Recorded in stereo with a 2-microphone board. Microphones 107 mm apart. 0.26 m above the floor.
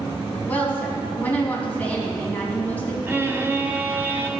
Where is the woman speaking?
15° left (ahead or behind), 2.5 m.